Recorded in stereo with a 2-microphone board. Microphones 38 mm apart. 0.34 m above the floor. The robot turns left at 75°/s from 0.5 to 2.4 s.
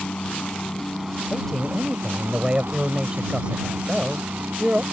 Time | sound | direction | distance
0.0 | a helicopter | 35° left | ?
1.3 | a man speaking | 35° left | ?